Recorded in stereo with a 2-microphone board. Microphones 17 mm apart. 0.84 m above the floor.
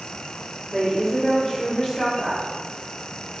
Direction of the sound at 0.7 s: 25° left (ahead or behind).